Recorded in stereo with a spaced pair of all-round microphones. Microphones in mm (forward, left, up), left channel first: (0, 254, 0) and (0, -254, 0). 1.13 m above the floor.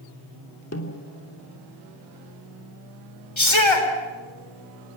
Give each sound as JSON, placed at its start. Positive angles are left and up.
{"t": 0.7, "sound": "a snare drum", "side_deg": 30, "distance_m": 3.0}
{"t": 3.4, "sound": "a shout", "side_deg": 65, "distance_m": 4.5}